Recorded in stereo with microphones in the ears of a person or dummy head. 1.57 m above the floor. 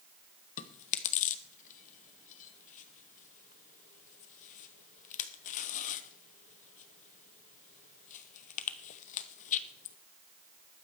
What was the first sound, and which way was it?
Chewing, 45° left (ahead or behind).